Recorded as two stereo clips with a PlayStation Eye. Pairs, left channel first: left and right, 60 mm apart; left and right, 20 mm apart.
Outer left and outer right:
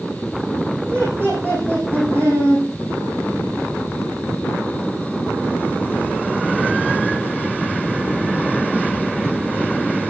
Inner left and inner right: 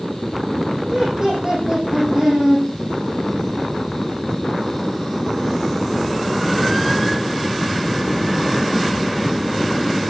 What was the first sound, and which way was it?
Laughter, 40° right (ahead or behind).